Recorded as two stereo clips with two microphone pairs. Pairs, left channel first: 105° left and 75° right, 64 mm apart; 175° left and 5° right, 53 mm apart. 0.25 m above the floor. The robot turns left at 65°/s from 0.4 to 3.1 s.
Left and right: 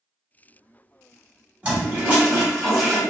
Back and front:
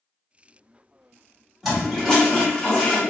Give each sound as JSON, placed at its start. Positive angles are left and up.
{"t": 1.6, "sound": "a toilet flushing", "azimuth_deg": -95, "distance_m": 1.2}